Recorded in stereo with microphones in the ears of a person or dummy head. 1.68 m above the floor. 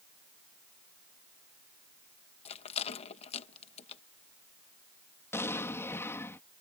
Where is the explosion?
10° left (ahead or behind).